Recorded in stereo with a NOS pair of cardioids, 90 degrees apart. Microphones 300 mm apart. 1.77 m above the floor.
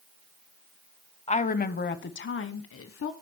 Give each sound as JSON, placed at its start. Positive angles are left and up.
{"t": 1.3, "sound": "a woman speaking", "azimuth_deg": 20, "distance_m": 0.9}